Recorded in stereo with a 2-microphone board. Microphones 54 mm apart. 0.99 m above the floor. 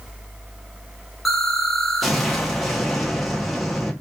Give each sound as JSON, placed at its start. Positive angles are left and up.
{"t": 1.2, "sound": "an explosion", "side_deg": 0, "distance_m": 0.7}